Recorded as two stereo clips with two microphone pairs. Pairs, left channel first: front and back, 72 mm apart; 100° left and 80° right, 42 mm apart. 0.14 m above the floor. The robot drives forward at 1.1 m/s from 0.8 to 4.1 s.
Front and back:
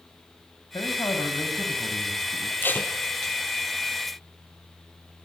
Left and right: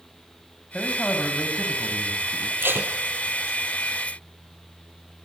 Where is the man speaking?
30° left, 8 m; by 2.5 s 40° left, 6.5 m.